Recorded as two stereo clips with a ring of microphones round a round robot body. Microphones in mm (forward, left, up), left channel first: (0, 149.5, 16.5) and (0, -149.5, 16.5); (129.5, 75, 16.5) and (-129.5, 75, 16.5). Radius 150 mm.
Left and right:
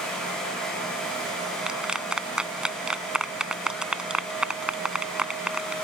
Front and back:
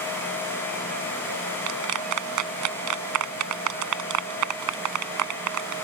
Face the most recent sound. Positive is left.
turn(degrees=-175)